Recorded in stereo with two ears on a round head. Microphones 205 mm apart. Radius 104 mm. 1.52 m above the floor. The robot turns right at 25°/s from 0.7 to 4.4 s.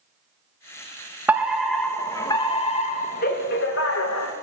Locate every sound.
1.3 s a fire alarm: 10° right, 3 m; by 4.3 s 70° left, 3 m